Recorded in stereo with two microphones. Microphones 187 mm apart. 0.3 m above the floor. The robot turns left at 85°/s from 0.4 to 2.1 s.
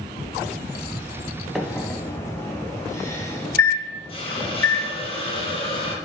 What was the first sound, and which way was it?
A microwave, centre (ahead or behind).